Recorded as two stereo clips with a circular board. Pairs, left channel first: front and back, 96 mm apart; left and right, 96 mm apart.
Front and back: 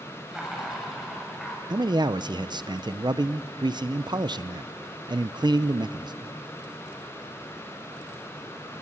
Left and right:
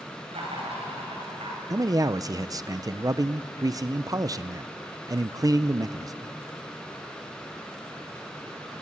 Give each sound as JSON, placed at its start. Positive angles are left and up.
{"t": 0.3, "sound": "laughter", "azimuth_deg": -95, "distance_m": 8.0}
{"t": 1.7, "sound": "a man speaking", "azimuth_deg": -140, "distance_m": 0.5}